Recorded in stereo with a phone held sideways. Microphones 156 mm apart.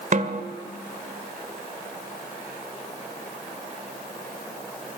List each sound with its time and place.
0.1 s a snare drum: 55° right (ahead or behind), 1.6 m